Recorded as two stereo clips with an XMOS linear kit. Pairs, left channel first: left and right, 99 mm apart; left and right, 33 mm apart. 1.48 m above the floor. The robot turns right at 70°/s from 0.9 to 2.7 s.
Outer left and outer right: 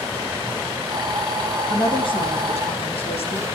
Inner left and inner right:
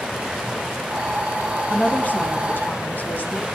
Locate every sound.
1.7 s a woman speaking: 35° left, 3 m; by 3.5 s 105° left, 3 m